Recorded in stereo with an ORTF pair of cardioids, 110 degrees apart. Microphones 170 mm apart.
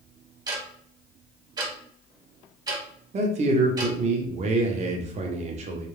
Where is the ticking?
25° right, 1.0 m.